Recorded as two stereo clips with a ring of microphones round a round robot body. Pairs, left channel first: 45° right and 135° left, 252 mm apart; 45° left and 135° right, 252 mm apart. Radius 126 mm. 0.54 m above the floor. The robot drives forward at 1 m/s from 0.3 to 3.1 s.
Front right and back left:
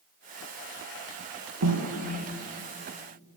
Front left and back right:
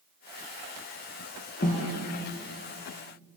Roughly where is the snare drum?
Left.